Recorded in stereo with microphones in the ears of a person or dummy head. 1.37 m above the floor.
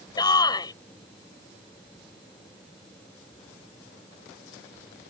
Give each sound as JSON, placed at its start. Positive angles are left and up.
{"t": 0.2, "sound": "a shout", "side_deg": 25}